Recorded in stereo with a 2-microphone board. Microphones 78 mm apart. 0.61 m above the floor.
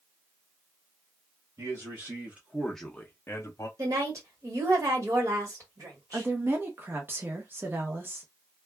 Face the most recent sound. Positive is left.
turn(degrees=-30)  # may be behind; listen again after turning